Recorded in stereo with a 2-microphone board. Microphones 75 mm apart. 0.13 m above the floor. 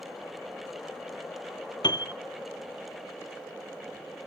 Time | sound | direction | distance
1.8 | a piano | 75° left (ahead or behind) | 0.6 m